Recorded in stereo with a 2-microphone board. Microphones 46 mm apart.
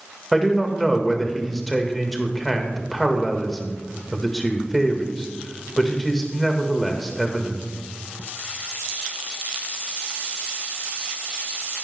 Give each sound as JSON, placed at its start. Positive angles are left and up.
{"t": 0.3, "sound": "a man speaking", "side_deg": 0, "distance_m": 1.6}